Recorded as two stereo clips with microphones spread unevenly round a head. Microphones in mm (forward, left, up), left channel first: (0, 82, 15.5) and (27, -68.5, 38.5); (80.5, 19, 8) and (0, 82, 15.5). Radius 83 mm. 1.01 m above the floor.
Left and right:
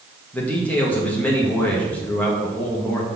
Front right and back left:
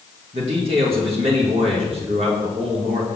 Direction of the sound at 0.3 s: 175° left.